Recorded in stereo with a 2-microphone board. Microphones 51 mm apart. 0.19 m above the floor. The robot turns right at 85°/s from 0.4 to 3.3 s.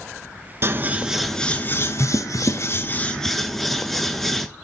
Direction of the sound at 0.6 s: 50° right.